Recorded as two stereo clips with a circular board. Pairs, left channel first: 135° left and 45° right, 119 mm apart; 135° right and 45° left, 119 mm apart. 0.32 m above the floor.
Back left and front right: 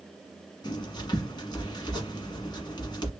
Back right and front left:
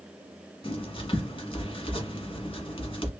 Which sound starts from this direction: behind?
Writing, at 0.6 s.